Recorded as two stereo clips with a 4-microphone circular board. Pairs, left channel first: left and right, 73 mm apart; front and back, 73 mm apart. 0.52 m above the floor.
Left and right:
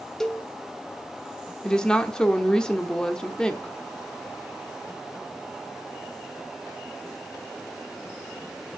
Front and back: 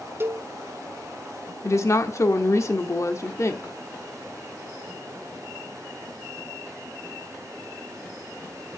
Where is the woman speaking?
15° left, 0.9 m.